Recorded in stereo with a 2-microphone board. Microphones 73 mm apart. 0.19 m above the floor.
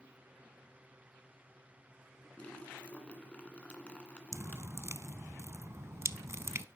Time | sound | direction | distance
2.4 | a splash | 15° left (ahead or behind) | 2 m
4.3 | dripping | 40° right (ahead or behind) | 0.6 m